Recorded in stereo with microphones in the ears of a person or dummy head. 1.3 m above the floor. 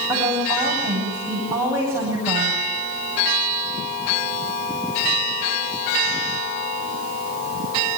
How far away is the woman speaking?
About 10 m.